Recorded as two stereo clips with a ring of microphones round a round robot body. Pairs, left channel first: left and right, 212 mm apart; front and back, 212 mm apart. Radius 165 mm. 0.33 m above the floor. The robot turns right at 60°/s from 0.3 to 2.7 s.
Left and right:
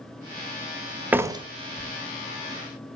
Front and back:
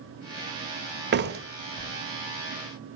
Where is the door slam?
170° right, 1.1 m; by 3.0 s 75° right, 1.1 m.